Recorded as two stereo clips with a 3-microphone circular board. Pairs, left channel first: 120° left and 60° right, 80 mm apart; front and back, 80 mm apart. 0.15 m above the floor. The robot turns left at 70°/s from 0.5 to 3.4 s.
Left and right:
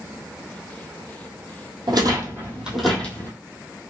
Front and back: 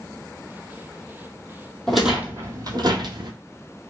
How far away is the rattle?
About 1.1 m.